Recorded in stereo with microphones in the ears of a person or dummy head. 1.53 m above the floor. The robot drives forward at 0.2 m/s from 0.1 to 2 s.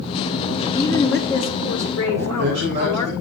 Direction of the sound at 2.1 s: 40° right (ahead or behind).